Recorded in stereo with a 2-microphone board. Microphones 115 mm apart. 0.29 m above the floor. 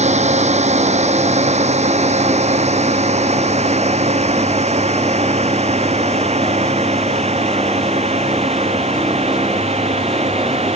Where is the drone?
75° right (ahead or behind); by 10.8 s 65° right (ahead or behind).